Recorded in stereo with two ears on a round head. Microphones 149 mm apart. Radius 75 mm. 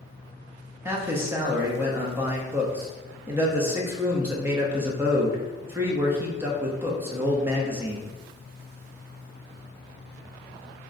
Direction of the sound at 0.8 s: 15° right (ahead or behind).